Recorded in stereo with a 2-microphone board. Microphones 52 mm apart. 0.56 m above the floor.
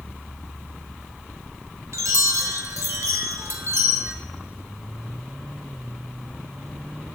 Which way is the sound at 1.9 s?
70° right (ahead or behind).